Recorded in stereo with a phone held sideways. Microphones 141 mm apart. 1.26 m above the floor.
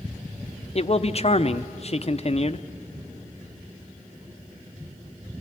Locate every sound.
0.8 s a man speaking: 45° left (ahead or behind), 0.7 m